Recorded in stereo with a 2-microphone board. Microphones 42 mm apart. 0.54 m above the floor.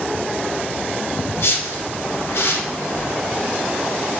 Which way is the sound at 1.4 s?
70° left (ahead or behind).